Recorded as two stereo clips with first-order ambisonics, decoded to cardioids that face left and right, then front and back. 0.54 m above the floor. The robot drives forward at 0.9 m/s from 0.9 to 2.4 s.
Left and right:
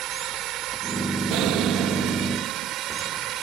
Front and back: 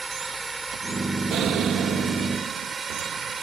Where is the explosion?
125° right; by 2.7 s 135° right.